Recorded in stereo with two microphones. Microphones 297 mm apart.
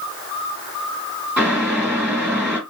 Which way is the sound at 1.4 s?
5° right (ahead or behind).